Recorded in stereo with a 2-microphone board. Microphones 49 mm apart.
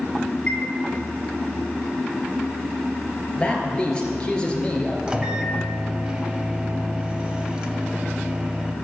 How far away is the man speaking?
About 3.5 m.